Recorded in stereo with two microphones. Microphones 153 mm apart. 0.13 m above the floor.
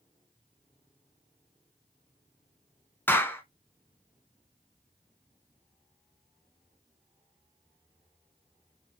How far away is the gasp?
No gasp in this recording.